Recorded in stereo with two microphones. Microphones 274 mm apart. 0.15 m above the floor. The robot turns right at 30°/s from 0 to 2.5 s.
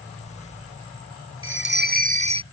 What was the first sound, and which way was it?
A bell, 50° right (ahead or behind).